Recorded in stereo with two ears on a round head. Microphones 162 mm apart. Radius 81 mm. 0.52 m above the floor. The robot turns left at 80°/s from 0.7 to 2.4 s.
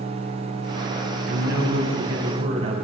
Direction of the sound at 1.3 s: 55° right.